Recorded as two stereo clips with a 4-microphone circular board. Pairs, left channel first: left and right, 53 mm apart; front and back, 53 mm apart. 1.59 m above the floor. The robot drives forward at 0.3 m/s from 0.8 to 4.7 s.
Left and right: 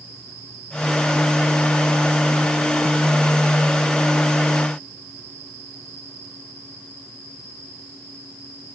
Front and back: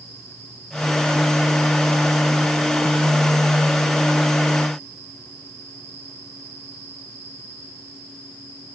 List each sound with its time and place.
Only background noise.